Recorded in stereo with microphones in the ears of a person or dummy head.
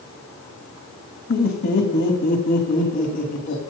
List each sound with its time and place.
1.3 s laughter: 60° left (ahead or behind), 2 m; by 3.6 s 65° left (ahead or behind), 3.5 m